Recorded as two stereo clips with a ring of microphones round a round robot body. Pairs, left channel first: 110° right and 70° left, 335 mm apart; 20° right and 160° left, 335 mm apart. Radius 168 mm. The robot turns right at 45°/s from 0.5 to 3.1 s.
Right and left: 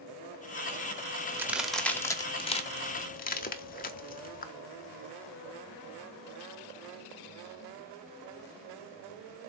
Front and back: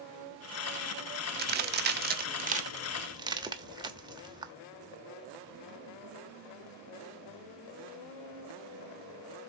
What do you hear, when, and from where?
1.4 s a crack: 145° left, 1.1 m; by 4.5 s 140° right, 1.1 m